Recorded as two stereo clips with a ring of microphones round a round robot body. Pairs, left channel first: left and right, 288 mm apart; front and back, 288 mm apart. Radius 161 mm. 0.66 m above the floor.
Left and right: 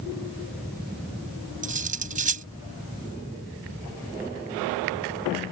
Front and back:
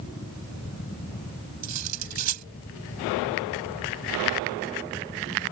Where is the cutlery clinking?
155° right.